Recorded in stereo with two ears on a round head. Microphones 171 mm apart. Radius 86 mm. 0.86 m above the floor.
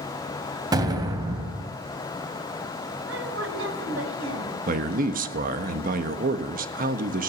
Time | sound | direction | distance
0.7 | an explosion | 20° right (ahead or behind) | 2 m
3.1 | a woman speaking | 75° right (ahead or behind) | 4 m
4.7 | a man speaking | 45° right (ahead or behind) | 1.3 m